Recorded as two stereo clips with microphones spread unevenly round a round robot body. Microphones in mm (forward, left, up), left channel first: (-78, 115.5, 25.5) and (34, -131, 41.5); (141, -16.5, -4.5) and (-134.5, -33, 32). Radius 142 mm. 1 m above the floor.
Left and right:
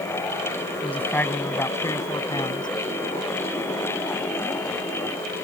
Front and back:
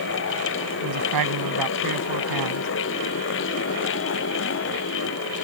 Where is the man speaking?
160° right; by 2.7 s 170° right.